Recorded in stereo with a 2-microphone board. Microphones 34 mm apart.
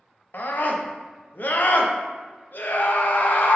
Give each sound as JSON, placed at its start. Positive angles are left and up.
{"t": 0.3, "sound": "a scream", "side_deg": 65, "distance_m": 0.6}